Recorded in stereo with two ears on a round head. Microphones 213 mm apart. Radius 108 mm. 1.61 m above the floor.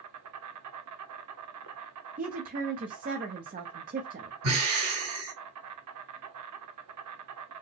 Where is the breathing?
65° right (ahead or behind), 2.5 m.